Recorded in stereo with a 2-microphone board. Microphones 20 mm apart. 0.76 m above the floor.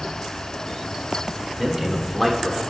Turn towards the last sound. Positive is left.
turn(degrees=15)  # may be behind; listen again after turning